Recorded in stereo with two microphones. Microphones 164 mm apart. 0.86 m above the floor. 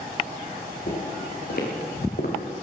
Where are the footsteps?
70° left (ahead or behind), 5.5 m; by 2.4 s 65° left (ahead or behind), 4 m.